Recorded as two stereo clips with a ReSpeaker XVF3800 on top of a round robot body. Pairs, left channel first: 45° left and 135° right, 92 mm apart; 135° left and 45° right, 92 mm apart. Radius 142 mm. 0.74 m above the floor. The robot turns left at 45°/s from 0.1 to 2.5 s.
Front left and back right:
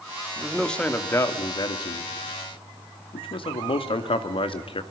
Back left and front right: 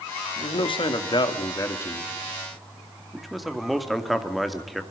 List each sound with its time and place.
0.4 s a man speaking: 140° left, 2.5 m; by 4.8 s 45° left, 2.5 m